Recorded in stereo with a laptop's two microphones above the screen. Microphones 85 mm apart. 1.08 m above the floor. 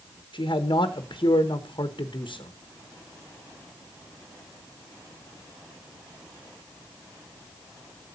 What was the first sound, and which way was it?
A man speaking, 60° left (ahead or behind).